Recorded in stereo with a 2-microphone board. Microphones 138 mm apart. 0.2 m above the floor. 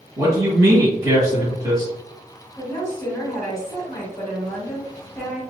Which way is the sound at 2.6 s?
20° left (ahead or behind).